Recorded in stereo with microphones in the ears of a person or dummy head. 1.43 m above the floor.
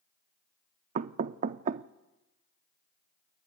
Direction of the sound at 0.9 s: 40° right (ahead or behind).